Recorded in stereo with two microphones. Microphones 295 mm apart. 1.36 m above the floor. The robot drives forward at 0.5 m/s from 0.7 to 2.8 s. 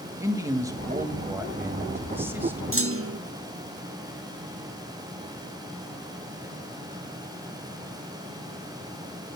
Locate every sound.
0.2 s a man speaking: 10° right (ahead or behind), 1.6 m; by 2.6 s 5° right (ahead or behind), 2.5 m
2.7 s a clunk: 45° right (ahead or behind), 0.8 m; by 3.2 s 50° right (ahead or behind), 0.8 m